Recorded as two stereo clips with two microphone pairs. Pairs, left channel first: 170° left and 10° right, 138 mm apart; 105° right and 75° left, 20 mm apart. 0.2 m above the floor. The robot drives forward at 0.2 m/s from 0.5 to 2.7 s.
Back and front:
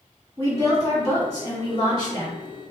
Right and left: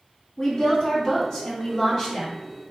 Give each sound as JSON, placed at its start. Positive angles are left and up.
{"t": 0.4, "sound": "a woman speaking", "azimuth_deg": -140, "distance_m": 1.9}